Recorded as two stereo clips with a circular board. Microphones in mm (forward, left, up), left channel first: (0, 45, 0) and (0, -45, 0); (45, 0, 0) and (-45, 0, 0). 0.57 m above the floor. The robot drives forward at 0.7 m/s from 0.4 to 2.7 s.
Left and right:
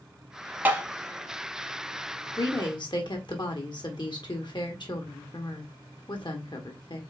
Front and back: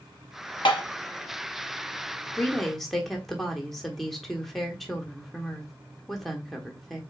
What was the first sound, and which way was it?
Tapping, 25° right.